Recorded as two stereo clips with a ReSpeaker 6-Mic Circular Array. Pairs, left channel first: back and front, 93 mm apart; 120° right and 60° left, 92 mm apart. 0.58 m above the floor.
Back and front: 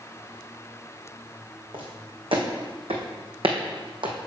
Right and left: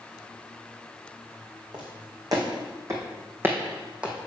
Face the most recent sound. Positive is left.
turn(degrees=-20)